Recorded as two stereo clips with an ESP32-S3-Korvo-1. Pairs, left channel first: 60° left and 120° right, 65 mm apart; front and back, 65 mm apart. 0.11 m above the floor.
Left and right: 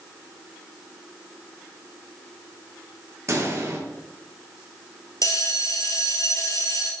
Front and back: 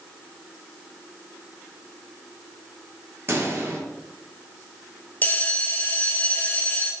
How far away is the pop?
About 3 m.